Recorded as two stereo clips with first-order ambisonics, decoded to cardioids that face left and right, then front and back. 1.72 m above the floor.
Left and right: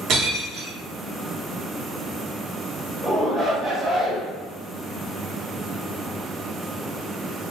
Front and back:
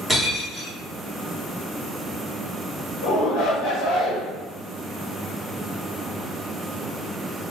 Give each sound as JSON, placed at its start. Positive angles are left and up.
{"t": 0.1, "sound": "breaking glass", "azimuth_deg": -85, "distance_m": 1.1}
{"t": 3.0, "sound": "a shout", "azimuth_deg": 5, "distance_m": 1.3}